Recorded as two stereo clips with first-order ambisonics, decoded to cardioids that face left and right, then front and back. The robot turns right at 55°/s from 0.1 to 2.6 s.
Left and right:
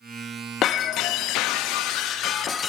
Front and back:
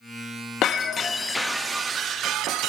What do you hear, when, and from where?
0.6 s breaking glass: 40° left, 0.6 m; by 2.7 s 150° left, 0.6 m